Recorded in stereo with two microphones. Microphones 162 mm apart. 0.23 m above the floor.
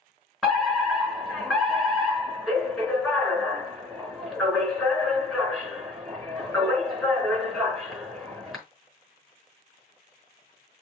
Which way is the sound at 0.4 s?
Centre (ahead or behind).